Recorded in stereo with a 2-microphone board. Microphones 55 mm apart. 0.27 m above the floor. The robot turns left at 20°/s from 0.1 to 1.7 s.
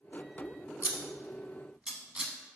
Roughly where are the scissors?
Right.